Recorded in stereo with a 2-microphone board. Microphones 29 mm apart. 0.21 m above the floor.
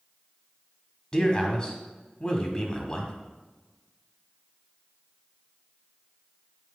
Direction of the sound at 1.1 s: 25° left (ahead or behind).